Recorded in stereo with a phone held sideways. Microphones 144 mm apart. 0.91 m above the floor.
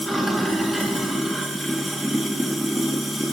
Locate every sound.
0.0 s running water: centre (ahead or behind), 1.6 m